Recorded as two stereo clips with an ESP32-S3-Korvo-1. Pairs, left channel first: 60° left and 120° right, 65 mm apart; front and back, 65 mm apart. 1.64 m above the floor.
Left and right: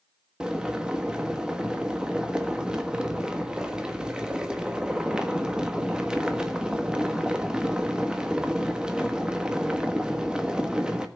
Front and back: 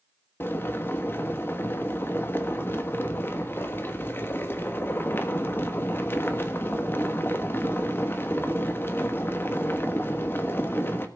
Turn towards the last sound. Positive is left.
turn(degrees=-45)